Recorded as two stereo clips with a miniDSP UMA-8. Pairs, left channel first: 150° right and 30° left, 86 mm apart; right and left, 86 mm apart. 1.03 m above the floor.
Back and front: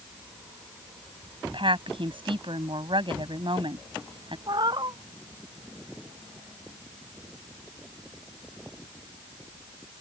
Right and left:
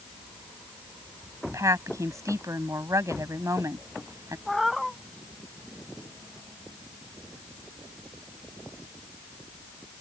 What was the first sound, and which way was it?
A woman speaking, 40° left.